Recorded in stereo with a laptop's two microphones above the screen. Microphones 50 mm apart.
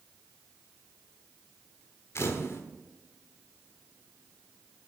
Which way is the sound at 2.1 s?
55° left (ahead or behind).